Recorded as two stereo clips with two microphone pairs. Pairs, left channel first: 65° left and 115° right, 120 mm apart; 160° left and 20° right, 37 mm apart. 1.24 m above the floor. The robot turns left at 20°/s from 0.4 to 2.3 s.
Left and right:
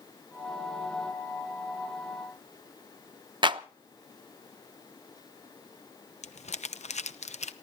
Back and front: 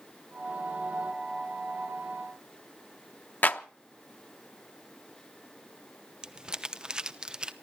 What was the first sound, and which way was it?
A clap, 165° right.